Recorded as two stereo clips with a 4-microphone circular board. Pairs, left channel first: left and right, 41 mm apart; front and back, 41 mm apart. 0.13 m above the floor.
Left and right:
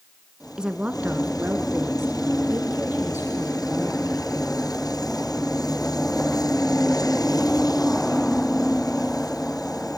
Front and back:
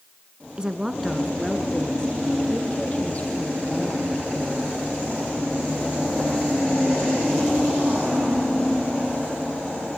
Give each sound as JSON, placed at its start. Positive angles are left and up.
{"t": 0.6, "sound": "a woman speaking", "azimuth_deg": -140, "distance_m": 1.1}